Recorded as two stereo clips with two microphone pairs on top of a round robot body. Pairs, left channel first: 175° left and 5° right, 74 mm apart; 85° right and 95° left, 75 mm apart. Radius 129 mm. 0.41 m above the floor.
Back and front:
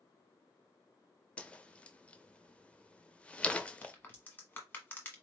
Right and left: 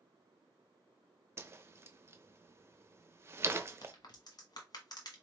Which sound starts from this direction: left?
A whoosh, at 1.4 s.